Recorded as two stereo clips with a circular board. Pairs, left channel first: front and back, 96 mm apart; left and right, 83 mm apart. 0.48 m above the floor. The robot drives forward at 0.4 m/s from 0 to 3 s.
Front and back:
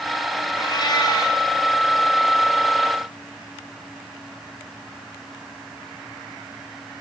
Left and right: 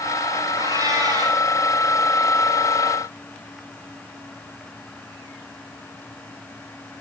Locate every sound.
0.6 s a cat meowing: 45° right, 8 m